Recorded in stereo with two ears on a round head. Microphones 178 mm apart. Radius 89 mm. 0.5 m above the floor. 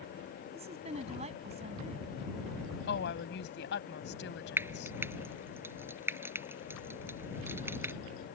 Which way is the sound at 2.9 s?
60° left (ahead or behind).